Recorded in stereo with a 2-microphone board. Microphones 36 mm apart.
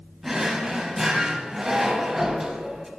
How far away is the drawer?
About 0.8 m.